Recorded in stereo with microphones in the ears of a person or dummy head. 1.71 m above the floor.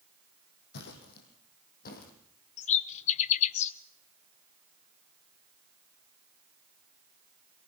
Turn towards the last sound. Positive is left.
turn(degrees=35)  # may be behind; listen again after turning